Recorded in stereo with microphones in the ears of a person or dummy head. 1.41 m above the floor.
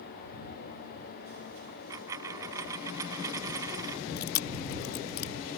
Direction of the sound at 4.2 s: 60° left (ahead or behind).